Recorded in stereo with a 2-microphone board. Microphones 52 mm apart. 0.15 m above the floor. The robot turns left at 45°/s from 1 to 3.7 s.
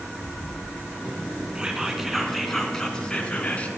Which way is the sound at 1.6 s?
150° right.